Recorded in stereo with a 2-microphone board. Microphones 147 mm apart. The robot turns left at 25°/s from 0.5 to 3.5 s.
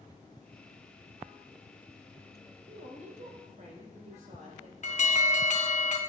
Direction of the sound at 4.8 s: 50° left (ahead or behind).